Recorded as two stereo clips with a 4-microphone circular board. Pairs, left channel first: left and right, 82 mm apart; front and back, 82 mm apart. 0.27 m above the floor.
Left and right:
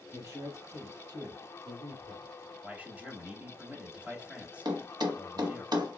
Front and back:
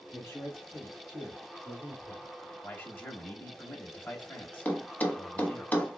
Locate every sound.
0.1 s a man speaking: 50° right, 1.8 m; by 2.3 s 80° right, 3 m
2.6 s a man speaking: 40° right, 1.0 m
4.7 s a thud: 70° right, 0.8 m